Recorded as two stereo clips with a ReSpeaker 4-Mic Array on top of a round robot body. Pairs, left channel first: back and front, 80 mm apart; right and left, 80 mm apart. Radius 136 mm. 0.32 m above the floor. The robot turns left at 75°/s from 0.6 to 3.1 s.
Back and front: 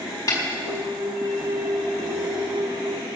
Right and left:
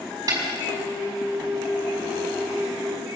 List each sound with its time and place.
0.3 s a snare drum: 140° left, 5 m